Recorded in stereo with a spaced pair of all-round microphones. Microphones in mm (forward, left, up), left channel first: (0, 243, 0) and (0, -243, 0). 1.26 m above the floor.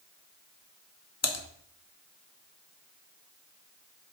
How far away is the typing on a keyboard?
About 0.9 m.